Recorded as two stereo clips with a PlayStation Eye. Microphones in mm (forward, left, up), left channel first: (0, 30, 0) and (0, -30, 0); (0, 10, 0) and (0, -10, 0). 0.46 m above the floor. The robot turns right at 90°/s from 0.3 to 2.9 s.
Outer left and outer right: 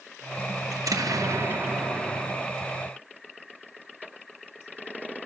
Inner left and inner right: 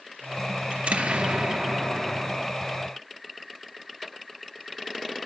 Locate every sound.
0.7 s an explosion: 115° right, 3 m; by 2.5 s 45° left, 3 m